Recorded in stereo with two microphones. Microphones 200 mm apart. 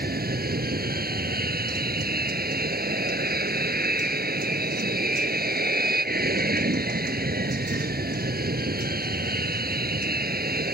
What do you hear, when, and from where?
0.0 s an aircraft: 50° right (ahead or behind)